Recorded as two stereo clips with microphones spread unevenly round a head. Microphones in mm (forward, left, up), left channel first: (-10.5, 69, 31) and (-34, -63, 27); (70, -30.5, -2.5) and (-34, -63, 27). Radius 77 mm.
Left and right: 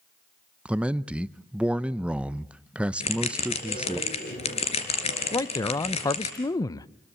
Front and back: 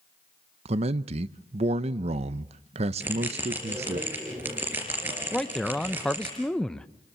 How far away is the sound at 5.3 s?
About 0.6 m.